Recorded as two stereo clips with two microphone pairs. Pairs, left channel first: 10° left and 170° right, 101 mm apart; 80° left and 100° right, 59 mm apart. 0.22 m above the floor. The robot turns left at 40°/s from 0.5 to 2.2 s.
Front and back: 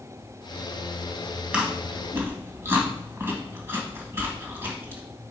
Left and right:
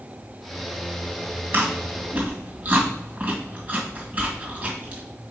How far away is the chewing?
About 1.9 m.